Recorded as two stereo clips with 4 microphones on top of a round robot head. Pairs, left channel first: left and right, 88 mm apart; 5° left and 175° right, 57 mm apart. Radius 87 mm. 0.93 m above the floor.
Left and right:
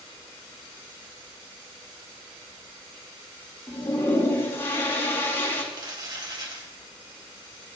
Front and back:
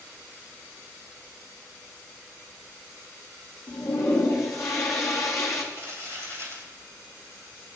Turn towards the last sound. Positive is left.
turn(degrees=-50)